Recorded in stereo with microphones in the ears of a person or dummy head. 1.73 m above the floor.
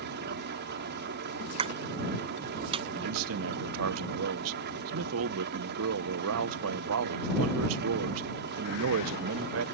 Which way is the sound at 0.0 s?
55° right (ahead or behind).